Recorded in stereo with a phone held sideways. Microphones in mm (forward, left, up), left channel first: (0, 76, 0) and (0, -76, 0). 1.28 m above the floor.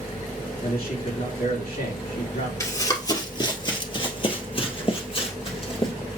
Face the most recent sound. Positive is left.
turn(degrees=35)  # may be behind; listen again after turning